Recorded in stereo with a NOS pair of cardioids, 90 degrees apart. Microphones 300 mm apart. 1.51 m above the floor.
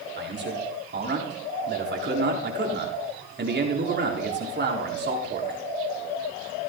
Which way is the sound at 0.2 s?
35° right.